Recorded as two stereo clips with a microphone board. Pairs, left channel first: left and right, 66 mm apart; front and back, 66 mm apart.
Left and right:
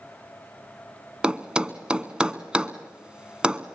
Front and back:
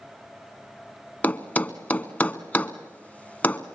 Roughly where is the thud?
Ahead right.